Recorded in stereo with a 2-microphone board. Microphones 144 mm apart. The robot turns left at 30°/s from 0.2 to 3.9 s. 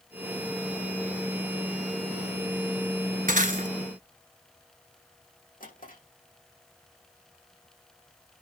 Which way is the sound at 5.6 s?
70° left (ahead or behind).